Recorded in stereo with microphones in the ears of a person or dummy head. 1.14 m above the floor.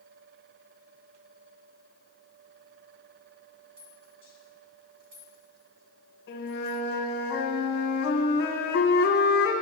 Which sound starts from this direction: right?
A rattle, at 3.8 s.